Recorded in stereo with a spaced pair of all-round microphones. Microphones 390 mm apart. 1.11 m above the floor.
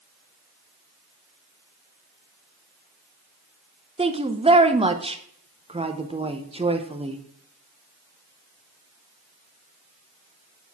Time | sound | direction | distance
4.0 | a woman speaking | 15° right (ahead or behind) | 0.6 m